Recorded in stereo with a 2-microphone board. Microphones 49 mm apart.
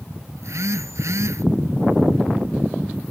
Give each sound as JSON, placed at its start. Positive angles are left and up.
{"t": 0.4, "sound": "a phone buzzing", "side_deg": -80}